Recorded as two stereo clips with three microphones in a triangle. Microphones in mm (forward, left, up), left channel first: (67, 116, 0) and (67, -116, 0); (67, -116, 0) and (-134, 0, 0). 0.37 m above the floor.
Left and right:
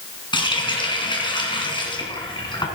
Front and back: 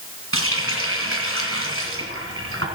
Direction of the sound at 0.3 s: 160° left.